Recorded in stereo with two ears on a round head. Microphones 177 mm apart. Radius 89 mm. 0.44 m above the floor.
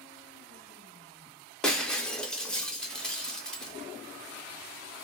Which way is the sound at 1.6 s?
5° left (ahead or behind).